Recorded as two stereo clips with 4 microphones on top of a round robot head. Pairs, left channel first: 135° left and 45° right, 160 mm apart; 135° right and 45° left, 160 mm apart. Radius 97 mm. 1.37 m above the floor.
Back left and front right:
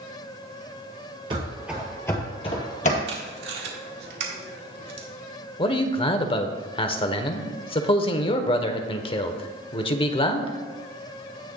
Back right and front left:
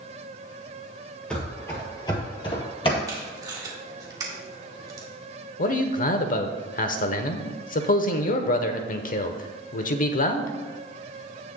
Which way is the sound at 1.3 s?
60° right.